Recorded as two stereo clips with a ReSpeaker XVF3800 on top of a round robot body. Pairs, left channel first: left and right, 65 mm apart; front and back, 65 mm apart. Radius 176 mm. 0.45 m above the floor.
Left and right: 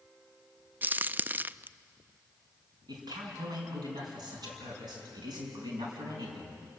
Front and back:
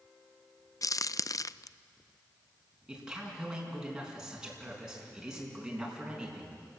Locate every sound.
0.8 s a crack: 30° right, 0.5 m
2.9 s a man speaking: 100° right, 6 m